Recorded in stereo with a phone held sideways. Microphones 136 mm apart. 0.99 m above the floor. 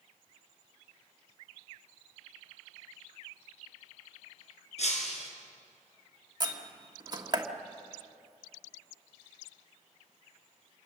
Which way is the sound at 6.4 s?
30° right (ahead or behind).